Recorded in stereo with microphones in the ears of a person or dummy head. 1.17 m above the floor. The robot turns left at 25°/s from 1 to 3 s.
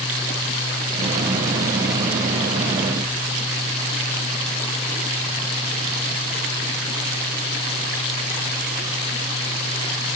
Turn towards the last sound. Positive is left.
No sound to turn to.